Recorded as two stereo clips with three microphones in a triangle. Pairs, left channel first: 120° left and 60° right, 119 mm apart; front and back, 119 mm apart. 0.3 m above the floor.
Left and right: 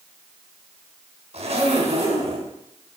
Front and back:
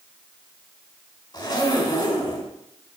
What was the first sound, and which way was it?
A zipper, 50° right.